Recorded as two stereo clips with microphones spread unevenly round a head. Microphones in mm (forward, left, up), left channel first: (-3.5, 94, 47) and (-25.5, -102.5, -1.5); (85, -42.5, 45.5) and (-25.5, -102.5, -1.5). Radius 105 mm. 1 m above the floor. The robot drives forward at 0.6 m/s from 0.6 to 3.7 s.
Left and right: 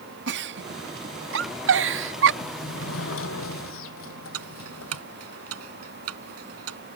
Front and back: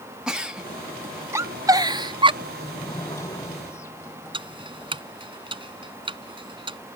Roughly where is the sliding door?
Left.